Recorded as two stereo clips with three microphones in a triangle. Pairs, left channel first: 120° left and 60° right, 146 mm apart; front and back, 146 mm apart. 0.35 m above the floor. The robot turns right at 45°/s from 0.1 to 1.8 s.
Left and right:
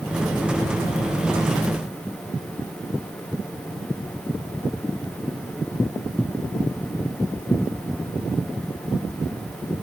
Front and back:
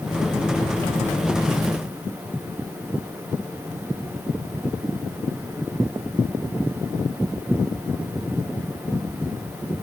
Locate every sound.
Only background noise.